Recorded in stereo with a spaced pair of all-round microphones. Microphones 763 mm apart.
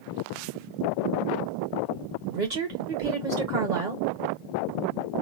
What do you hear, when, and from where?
2.3 s a woman speaking: 70° right (ahead or behind), 1.8 m